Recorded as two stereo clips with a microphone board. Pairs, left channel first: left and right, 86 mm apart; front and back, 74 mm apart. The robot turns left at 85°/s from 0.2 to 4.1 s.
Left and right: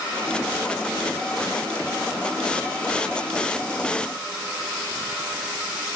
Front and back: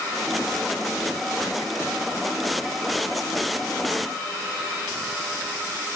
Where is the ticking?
No ticking in this recording.